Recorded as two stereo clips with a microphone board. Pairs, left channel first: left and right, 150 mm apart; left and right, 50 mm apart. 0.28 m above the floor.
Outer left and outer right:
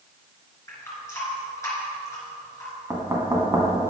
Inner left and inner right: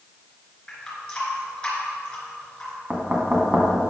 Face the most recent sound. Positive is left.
turn(degrees=-20)  # may be behind; listen again after turning